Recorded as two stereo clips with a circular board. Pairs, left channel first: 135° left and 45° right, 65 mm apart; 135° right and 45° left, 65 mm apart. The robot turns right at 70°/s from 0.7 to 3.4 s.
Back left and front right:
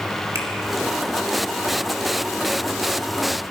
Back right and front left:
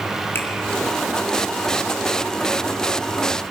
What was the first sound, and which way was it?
A finger snap, 80° right.